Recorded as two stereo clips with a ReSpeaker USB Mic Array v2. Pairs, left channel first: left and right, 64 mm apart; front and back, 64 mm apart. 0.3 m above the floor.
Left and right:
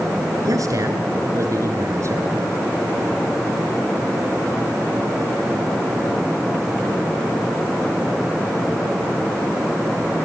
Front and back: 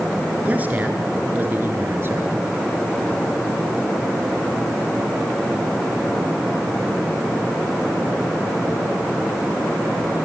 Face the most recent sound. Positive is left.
turn(degrees=-130)